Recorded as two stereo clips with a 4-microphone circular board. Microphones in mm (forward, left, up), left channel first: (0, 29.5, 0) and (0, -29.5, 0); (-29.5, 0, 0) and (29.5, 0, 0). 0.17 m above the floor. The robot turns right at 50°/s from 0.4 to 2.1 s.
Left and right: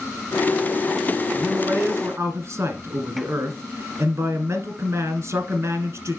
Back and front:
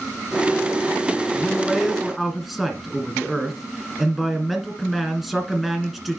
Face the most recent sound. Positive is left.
turn(degrees=-85)